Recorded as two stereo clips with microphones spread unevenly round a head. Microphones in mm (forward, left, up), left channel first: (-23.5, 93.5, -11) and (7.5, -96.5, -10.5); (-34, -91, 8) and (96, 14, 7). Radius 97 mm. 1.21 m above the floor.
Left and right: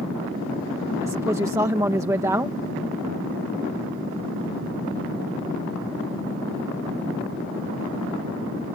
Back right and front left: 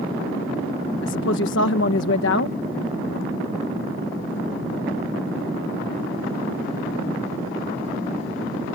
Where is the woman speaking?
155° right.